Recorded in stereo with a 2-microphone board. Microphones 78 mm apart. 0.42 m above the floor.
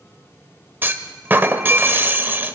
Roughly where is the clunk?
Right.